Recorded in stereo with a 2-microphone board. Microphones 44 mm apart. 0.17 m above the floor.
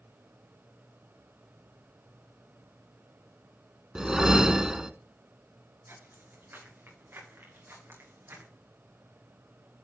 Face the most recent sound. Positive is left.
turn(degrees=-75)  # may be behind; listen again after turning